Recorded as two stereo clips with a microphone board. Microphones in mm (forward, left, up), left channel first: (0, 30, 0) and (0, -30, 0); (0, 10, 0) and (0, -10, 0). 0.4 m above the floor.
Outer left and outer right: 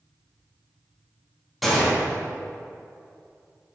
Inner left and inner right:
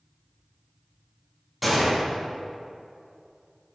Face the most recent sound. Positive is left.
turn(degrees=0)  # may be behind; listen again after turning